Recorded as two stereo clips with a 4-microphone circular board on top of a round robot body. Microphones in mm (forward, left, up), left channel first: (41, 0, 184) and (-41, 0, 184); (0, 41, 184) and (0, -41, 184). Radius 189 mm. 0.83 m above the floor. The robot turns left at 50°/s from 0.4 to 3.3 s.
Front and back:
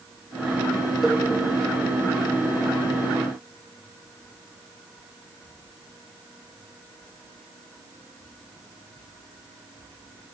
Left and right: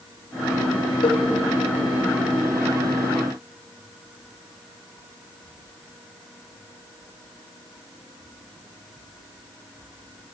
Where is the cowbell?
95° left, 1.4 m; by 1.2 s 85° left, 1.4 m.